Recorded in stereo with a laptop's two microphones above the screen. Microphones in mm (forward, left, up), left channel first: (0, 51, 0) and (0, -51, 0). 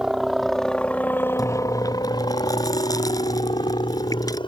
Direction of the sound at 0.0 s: 5° right (ahead or behind).